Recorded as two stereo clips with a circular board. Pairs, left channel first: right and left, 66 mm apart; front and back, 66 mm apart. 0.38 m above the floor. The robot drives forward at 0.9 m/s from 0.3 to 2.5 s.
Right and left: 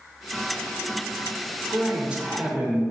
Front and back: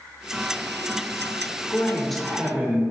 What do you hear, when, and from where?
1.7 s a man speaking: 30° left, 0.9 m; by 2.8 s 140° left, 0.9 m